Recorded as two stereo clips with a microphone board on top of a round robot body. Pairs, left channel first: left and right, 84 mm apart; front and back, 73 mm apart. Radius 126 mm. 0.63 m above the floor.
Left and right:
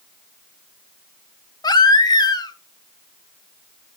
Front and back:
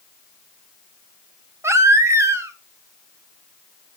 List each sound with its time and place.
1.6 s a baby crying: 130° left, 1.5 m